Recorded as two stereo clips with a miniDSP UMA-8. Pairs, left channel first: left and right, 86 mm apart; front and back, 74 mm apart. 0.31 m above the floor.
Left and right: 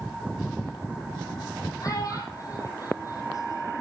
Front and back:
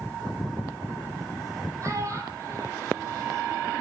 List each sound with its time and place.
1.8 s a child speaking: 135° left, 6.5 m